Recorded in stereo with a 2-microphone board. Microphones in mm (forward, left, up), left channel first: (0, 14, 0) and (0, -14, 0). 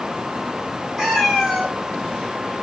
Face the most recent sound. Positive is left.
turn(degrees=-5)  # may be behind; listen again after turning